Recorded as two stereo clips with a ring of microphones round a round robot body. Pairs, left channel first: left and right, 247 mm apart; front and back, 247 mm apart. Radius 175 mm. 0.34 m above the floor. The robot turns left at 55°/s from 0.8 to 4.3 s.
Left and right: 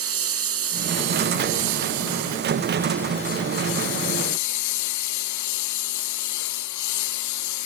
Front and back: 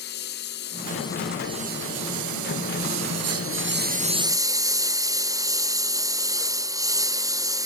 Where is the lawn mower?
65° right; by 7.7 s 105° left.